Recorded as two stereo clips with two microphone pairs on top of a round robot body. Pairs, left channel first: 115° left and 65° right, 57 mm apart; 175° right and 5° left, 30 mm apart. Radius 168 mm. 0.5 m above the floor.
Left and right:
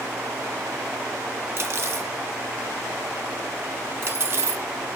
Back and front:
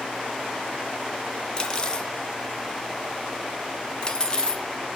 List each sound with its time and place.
1.6 s cutlery clinking: 105° right, 1.7 m